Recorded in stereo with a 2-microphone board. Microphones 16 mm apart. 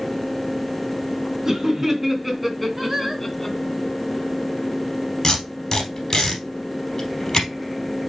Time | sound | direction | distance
1.4 | laughter | 25° right (ahead or behind) | 3 m
2.8 | singing | 20° right (ahead or behind) | 2 m
5.2 | tape being pulled | 35° left (ahead or behind) | 3.5 m